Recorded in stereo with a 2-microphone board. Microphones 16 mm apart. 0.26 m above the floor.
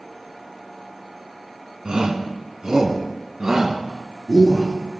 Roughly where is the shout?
Right.